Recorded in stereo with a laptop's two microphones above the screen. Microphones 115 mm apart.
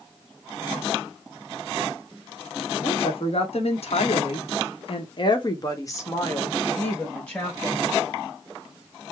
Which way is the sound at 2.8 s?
55° left (ahead or behind).